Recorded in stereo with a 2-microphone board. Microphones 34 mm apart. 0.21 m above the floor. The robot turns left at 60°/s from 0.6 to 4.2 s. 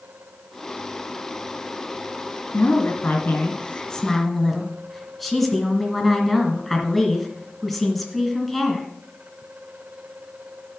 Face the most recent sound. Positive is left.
turn(degrees=0)